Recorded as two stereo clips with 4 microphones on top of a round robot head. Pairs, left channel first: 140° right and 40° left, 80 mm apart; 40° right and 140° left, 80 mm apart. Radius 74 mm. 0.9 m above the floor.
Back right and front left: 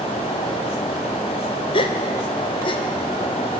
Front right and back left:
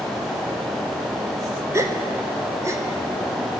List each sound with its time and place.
1.7 s a gasp: 160° right, 2 m